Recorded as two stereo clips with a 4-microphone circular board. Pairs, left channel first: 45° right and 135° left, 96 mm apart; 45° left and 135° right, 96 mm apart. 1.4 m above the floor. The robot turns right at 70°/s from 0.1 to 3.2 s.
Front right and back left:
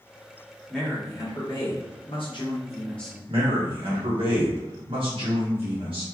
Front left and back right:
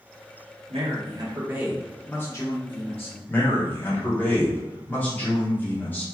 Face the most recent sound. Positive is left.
turn(degrees=115)